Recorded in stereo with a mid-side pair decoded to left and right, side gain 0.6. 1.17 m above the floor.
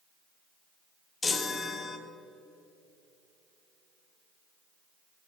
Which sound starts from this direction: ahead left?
A chime, at 1.2 s.